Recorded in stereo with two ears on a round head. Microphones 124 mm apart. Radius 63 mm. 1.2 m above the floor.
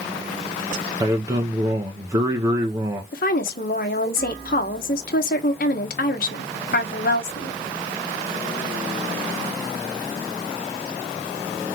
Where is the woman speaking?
70° left (ahead or behind), 1.2 m.